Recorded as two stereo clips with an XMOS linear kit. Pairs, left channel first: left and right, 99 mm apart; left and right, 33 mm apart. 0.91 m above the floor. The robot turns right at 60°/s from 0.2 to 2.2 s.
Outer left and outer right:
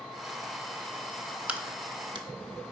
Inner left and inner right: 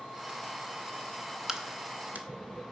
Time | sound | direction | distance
1.5 | a crack | 15° right (ahead or behind) | 0.8 m